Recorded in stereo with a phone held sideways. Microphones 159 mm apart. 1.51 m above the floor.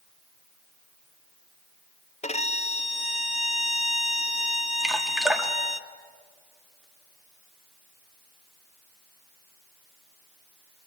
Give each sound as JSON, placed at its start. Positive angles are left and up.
{"t": 2.2, "sound": "a violin", "side_deg": 45, "distance_m": 0.7}
{"t": 4.8, "sound": "dripping", "side_deg": -5, "distance_m": 1.6}